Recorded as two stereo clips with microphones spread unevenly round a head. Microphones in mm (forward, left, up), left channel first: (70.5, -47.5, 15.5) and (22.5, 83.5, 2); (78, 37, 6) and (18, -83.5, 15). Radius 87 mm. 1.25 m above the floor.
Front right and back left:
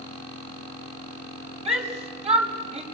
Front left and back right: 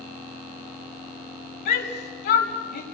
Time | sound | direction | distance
1.6 | a shout | 60° left | 6 m